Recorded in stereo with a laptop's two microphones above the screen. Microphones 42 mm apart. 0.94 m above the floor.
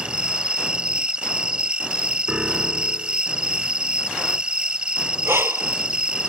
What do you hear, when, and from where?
0.0 s an insect: 25° right (ahead or behind)
2.3 s a piano: 15° right (ahead or behind)
5.2 s breathing: 75° right (ahead or behind)